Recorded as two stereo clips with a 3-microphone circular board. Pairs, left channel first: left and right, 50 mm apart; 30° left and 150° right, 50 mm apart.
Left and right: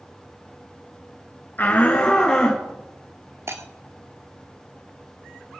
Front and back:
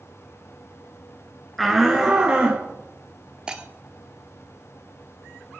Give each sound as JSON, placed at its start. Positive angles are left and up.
{"t": 1.6, "sound": "a shout", "azimuth_deg": 120, "distance_m": 2.0}
{"t": 3.5, "sound": "breaking glass", "azimuth_deg": -80, "distance_m": 1.6}